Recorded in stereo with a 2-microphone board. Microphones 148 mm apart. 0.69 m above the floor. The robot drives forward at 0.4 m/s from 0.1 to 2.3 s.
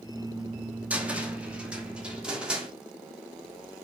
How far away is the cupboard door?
About 1.0 m.